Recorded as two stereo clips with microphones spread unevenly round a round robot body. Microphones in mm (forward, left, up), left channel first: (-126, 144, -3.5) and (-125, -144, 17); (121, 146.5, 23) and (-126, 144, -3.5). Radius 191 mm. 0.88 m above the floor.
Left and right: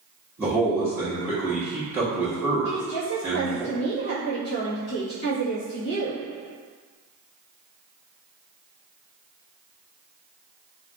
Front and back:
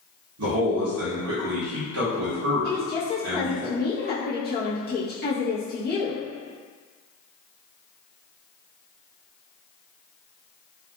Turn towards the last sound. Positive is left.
turn(degrees=45)